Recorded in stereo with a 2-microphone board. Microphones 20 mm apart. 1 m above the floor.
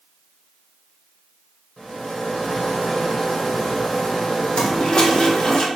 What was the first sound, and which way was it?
A rattle, 40° left (ahead or behind).